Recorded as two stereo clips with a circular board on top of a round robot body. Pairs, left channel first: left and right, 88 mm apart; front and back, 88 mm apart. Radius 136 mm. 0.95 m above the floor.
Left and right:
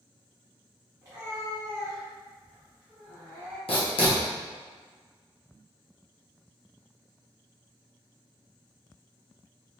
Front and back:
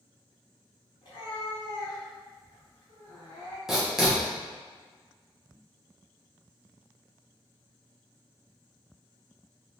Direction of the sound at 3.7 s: 95° left.